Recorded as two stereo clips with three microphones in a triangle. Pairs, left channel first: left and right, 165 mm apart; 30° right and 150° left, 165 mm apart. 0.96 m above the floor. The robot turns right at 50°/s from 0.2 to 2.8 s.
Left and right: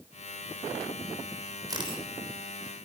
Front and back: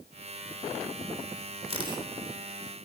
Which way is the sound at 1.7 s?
155° right.